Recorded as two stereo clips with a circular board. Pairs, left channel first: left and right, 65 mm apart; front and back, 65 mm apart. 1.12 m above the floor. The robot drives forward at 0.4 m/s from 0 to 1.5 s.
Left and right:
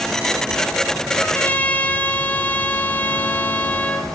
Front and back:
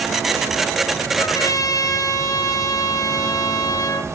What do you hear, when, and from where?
1.2 s a trumpet: 25° left, 2 m